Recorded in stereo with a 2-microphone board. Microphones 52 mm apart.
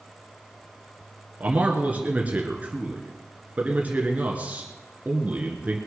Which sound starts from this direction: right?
A man speaking, at 1.4 s.